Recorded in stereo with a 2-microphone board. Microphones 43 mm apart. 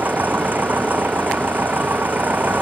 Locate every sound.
0.0 s an engine running: 45° right (ahead or behind)